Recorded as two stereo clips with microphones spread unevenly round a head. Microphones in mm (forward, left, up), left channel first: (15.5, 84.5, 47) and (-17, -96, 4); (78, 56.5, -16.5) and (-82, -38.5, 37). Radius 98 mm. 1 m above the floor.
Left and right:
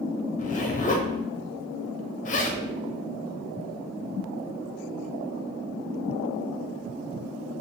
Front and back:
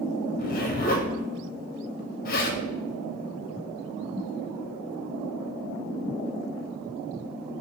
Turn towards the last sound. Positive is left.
turn(degrees=25)